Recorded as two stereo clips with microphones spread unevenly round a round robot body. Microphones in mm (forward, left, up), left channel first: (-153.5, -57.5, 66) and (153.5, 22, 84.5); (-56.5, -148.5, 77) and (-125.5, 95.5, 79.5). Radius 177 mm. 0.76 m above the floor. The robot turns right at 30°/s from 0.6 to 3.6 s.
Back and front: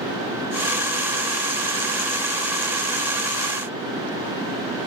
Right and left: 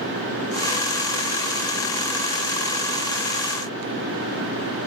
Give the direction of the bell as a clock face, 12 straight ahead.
No bell in this recording.